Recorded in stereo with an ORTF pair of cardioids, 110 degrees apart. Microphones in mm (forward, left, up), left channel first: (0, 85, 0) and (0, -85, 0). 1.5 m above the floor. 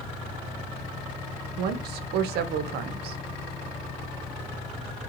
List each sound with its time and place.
1.6 s a woman speaking: 70° right, 0.5 m